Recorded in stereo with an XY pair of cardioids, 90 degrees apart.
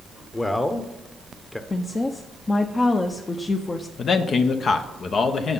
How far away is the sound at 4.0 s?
About 0.9 m.